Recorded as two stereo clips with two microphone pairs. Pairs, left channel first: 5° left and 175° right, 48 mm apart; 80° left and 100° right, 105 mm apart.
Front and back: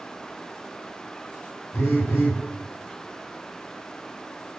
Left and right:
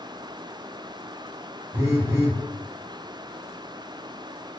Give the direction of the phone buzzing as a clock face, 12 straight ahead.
1 o'clock.